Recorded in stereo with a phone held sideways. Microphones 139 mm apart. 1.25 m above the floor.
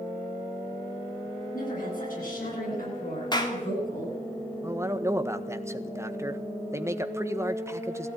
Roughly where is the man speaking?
Centre.